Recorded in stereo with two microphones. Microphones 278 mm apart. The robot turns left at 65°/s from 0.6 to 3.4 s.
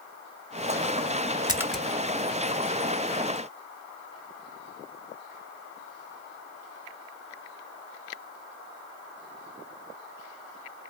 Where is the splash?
15° right (ahead or behind), 0.6 m; by 1.8 s 5° left (ahead or behind), 0.6 m.